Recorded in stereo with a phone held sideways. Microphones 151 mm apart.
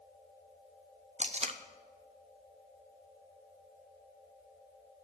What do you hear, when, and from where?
1.2 s tape being pulled: 45° right (ahead or behind), 0.8 m